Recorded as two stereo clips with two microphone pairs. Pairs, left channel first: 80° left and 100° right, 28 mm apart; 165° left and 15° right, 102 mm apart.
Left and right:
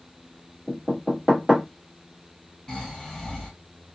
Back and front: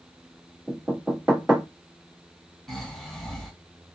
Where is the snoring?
90° left, 1.5 m.